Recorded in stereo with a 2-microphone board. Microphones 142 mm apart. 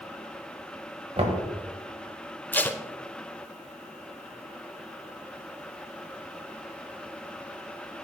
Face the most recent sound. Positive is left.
turn(degrees=15)  # may be behind; listen again after turning